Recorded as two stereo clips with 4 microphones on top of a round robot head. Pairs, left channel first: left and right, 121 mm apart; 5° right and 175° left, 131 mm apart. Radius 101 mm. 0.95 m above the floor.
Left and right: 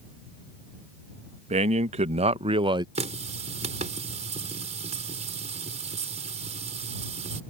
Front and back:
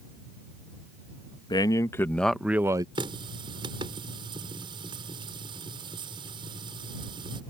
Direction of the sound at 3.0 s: 120° right.